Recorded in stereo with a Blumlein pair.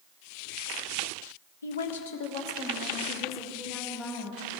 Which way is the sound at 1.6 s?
70° left.